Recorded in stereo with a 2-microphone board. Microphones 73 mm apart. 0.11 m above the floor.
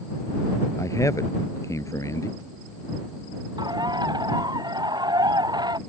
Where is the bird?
75° right (ahead or behind).